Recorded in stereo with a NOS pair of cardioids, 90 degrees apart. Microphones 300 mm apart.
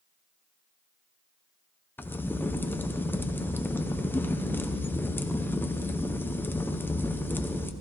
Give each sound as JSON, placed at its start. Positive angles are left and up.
{"t": 2.0, "sound": "a crack", "azimuth_deg": 5, "distance_m": 0.6}